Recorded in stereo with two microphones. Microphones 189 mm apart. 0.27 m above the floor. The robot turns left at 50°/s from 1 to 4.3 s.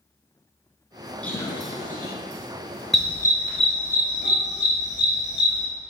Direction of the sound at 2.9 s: Centre (ahead or behind).